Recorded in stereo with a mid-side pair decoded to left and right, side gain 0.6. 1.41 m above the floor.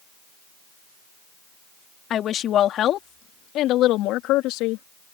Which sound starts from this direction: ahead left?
A woman speaking, at 2.1 s.